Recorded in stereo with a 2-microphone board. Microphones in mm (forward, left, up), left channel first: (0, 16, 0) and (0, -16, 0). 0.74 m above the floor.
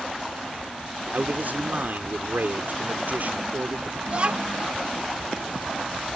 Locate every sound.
1.1 s a man speaking: 65° right (ahead or behind)
4.1 s a child speaking: 40° right (ahead or behind)